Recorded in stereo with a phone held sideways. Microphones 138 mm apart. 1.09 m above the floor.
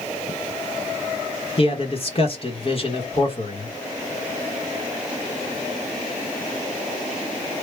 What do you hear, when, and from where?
1.6 s a man speaking: 45° left (ahead or behind), 0.9 m